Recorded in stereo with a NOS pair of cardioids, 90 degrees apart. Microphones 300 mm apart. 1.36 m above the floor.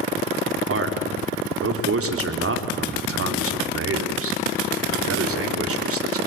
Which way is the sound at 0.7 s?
45° right.